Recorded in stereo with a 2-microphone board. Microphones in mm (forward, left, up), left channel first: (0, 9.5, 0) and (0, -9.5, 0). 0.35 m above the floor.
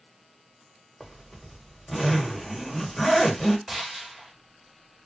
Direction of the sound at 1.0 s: 5° left (ahead or behind).